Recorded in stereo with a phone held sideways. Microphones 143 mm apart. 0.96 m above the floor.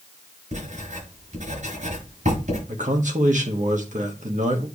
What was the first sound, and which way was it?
Writing, 70° right (ahead or behind).